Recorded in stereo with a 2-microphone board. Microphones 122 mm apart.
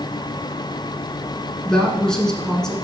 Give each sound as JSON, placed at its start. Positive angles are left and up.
{"t": 1.6, "sound": "a woman speaking", "side_deg": 5, "distance_m": 1.3}